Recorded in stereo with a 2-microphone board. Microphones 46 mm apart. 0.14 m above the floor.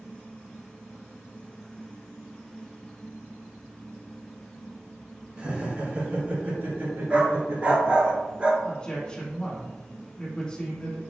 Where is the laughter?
25° right (ahead or behind), 1.3 m; by 8.1 s 60° right (ahead or behind), 2.5 m.